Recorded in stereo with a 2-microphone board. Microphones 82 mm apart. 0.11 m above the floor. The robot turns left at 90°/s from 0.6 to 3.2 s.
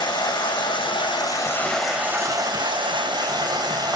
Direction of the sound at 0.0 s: 110° left.